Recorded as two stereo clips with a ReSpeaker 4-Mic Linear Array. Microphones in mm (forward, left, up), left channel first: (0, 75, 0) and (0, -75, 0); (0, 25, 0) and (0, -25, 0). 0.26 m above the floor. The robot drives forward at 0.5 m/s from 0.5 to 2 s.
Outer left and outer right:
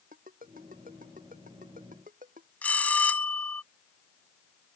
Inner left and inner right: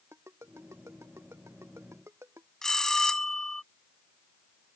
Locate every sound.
0.1 s a ringtone: 70° right (ahead or behind); by 2.5 s 65° right (ahead or behind)
2.6 s a bell: 10° left (ahead or behind)